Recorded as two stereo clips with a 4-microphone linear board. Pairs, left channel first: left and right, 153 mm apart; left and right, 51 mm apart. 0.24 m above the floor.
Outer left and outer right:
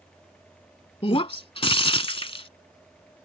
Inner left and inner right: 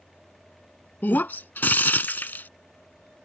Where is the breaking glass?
40° left (ahead or behind).